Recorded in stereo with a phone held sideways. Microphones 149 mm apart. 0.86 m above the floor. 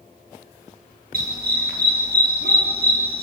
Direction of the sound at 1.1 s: 70° right (ahead or behind).